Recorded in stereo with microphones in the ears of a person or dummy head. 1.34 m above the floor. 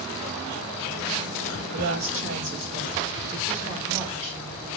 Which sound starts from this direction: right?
A woman speaking, at 1.7 s.